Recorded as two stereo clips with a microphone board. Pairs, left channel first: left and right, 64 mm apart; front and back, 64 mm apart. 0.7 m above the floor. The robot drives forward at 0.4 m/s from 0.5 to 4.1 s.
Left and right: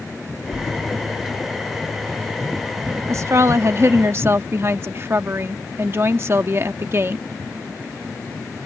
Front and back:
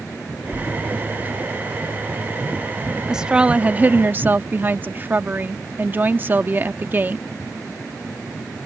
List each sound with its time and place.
0.5 s a splash: 105° left; by 2.0 s 130° left
3.1 s a woman speaking: 105° right; by 7.2 s 130° right